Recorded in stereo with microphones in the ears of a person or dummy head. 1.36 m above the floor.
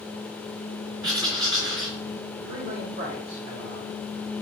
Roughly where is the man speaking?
Right.